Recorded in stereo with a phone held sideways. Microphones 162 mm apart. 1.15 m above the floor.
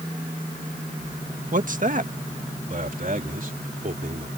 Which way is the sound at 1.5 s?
55° right (ahead or behind).